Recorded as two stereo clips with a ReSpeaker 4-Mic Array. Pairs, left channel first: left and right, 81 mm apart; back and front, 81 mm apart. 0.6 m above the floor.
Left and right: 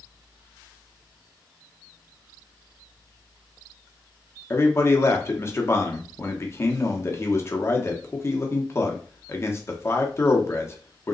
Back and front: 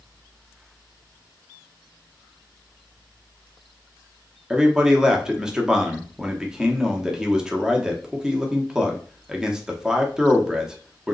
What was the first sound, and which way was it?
A man speaking, 75° left.